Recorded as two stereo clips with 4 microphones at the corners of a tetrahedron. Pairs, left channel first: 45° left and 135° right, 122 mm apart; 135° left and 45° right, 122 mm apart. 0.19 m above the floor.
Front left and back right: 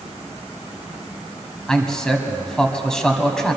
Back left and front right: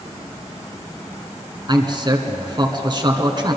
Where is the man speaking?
40° right, 1.4 m.